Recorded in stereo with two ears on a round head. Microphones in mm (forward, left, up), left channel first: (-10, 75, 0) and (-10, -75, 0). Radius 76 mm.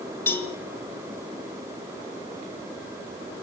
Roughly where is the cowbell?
Centre.